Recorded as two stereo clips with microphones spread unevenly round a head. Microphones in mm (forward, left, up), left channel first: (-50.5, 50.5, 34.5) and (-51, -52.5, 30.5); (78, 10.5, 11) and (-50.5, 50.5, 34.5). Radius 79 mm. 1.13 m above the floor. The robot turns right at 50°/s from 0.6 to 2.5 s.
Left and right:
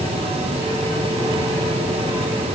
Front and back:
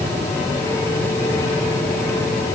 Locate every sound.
Only background noise.